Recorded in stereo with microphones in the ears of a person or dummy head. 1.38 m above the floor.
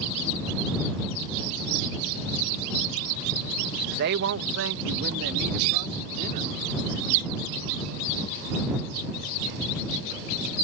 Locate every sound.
4.0 s a woman speaking: 55° right (ahead or behind); by 7.0 s 50° right (ahead or behind)